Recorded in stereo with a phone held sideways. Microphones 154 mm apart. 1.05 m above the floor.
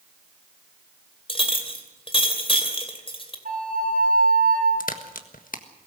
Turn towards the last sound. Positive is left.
turn(degrees=65)  # may be behind; listen again after turning